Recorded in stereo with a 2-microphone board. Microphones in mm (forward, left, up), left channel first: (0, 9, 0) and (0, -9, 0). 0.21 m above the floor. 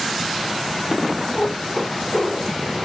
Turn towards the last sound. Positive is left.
turn(degrees=40)  # may be behind; listen again after turning